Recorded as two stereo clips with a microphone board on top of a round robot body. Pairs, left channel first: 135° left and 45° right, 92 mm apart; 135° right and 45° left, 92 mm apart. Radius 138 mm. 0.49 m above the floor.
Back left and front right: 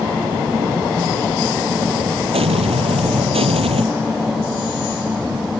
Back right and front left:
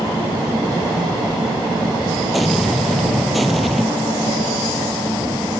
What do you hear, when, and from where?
2.3 s an explosion: 45° right